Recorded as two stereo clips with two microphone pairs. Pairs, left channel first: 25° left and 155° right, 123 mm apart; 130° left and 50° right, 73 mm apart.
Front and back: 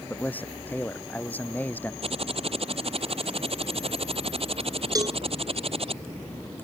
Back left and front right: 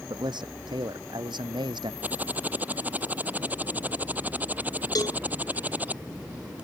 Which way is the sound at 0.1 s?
50° right.